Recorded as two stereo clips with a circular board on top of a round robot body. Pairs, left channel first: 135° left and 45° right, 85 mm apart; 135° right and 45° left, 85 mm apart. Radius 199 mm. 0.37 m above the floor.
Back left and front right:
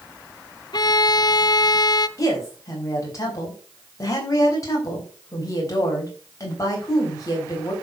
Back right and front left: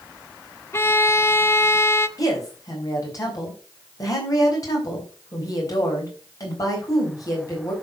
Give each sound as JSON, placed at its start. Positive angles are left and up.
{"t": 0.7, "sound": "a violin", "azimuth_deg": 165, "distance_m": 0.8}
{"t": 2.2, "sound": "a woman speaking", "azimuth_deg": 180, "distance_m": 4.0}